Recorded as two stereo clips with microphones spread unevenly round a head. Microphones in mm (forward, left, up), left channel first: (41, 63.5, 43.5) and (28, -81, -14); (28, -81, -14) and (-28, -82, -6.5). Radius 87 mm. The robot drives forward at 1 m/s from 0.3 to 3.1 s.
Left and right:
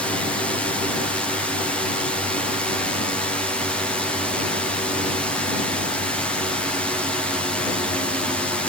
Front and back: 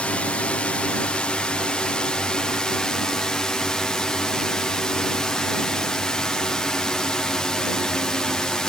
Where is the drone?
35° right; by 8.7 s 50° right.